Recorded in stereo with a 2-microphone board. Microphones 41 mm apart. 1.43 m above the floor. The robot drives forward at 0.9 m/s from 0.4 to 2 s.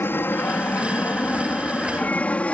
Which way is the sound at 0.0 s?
65° left (ahead or behind).